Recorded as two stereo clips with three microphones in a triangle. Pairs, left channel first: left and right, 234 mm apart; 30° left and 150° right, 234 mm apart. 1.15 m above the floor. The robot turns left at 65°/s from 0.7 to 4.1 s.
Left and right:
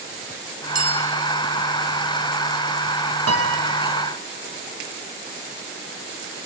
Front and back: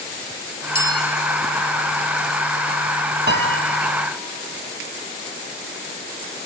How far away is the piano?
About 1.2 m.